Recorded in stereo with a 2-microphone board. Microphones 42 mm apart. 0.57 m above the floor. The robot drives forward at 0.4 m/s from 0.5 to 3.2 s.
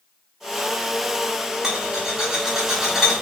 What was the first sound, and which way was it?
A rattle, 15° right (ahead or behind).